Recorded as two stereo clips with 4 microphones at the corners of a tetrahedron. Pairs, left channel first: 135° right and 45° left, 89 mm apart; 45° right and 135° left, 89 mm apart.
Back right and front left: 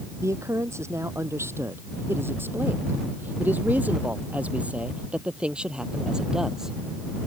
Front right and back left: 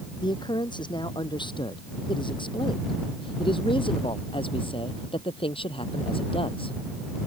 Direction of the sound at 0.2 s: 10° right.